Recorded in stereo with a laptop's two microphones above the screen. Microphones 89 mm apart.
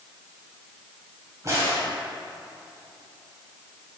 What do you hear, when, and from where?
1.4 s a crack: 35° right (ahead or behind), 2 m